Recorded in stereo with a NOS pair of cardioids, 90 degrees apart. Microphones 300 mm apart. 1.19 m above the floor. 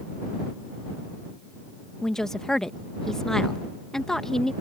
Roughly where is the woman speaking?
Ahead.